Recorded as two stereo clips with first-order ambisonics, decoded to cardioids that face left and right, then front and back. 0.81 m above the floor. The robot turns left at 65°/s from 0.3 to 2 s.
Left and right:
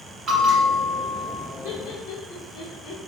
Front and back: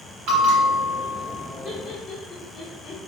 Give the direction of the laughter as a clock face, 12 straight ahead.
9 o'clock.